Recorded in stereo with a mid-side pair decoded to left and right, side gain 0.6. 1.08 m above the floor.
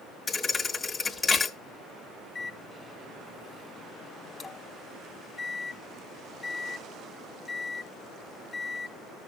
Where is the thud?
25° left, 1.2 m.